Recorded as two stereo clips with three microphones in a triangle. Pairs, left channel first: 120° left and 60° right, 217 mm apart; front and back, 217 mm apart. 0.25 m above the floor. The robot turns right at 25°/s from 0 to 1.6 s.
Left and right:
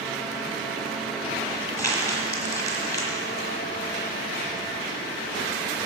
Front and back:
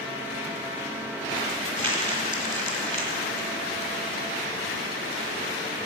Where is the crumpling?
45° left, 1.6 m.